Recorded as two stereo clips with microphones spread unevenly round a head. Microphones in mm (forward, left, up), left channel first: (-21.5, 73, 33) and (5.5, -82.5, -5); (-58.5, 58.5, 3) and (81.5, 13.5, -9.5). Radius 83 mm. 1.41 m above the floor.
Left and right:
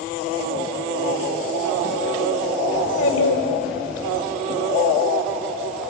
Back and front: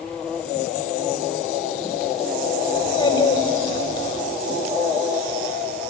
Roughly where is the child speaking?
Left.